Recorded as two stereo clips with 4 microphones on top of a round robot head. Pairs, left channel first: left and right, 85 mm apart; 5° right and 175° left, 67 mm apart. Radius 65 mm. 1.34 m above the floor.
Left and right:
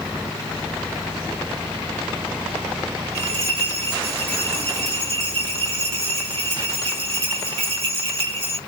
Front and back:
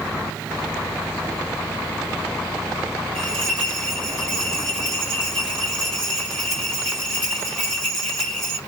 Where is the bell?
85° right, 1.7 m.